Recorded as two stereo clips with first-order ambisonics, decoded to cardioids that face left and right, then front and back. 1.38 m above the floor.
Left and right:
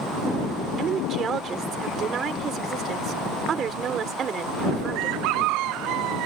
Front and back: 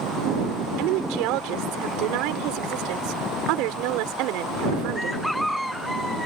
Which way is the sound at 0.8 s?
155° right.